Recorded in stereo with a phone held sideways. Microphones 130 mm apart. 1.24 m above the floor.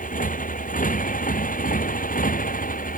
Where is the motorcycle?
75° left (ahead or behind); by 3.0 s 80° left.